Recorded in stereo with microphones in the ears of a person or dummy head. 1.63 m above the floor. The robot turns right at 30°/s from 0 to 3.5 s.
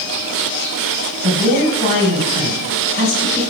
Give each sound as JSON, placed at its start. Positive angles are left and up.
{"t": 1.2, "sound": "a man speaking", "azimuth_deg": 20, "distance_m": 1.5}